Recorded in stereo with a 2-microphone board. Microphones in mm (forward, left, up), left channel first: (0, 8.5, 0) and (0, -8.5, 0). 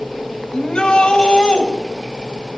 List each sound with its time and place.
0.5 s a shout: 80° left, 5 m